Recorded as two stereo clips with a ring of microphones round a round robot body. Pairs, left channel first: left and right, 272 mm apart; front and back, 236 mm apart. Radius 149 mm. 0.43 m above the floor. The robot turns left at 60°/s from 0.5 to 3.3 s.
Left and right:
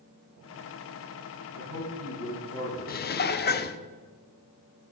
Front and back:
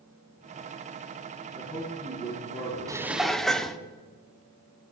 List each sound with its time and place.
1.5 s a man speaking: 75° right, 3.5 m; by 3.7 s straight behind, 3.5 m
2.9 s dishes clattering: 110° left, 0.8 m; by 3.8 s 85° left, 0.8 m